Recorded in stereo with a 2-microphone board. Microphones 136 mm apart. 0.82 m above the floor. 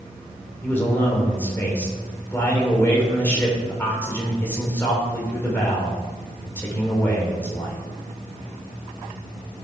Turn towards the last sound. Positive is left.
turn(degrees=15)  # may be behind; listen again after turning